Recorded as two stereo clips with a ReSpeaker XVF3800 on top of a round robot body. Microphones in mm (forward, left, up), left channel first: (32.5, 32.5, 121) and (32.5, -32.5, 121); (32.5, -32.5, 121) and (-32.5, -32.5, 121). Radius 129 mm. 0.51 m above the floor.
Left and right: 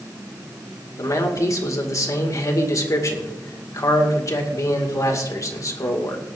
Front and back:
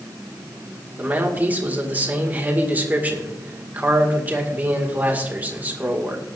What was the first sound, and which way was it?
A man speaking, 120° left.